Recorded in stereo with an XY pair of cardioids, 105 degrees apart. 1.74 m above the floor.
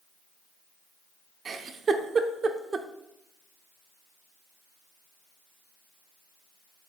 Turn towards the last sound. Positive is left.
turn(degrees=-45)